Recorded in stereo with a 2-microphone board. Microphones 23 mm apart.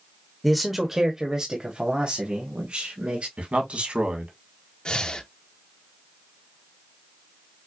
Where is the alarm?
I don't hear an alarm.